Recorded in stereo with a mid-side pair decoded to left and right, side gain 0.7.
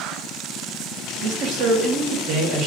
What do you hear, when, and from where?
1.2 s a man speaking: 55° right, 1.4 m